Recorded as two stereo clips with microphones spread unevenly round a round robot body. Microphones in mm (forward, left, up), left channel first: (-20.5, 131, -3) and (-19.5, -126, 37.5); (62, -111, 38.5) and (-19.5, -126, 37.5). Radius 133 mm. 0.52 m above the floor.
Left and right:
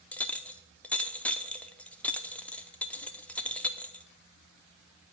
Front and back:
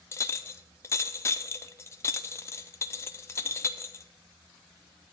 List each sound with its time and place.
0.1 s a clink: 25° left, 0.5 m